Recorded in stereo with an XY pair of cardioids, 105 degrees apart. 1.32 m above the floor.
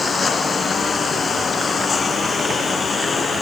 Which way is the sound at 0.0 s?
40° left.